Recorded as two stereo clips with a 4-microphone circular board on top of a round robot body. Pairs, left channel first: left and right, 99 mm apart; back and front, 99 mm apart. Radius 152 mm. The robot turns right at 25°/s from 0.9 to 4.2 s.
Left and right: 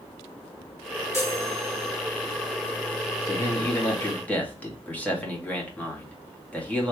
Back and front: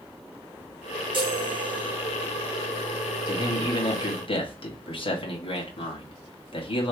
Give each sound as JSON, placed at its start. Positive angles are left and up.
{"t": 1.1, "sound": "a chime", "azimuth_deg": 30, "distance_m": 2.0}
{"t": 3.3, "sound": "a man speaking", "azimuth_deg": 140, "distance_m": 2.0}